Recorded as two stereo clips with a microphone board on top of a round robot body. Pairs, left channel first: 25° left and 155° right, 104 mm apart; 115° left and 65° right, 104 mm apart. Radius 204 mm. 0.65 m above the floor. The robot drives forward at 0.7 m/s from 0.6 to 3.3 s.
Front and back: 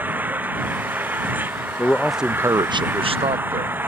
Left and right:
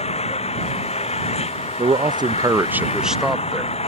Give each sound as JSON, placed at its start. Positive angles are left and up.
{"t": 0.0, "sound": "an engine running", "azimuth_deg": 130}
{"t": 1.8, "sound": "a man speaking", "azimuth_deg": -40}